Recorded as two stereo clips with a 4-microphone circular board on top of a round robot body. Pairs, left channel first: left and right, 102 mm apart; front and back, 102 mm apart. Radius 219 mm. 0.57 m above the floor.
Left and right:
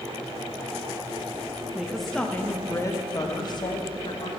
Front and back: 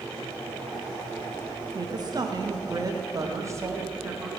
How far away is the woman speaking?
About 1.0 m.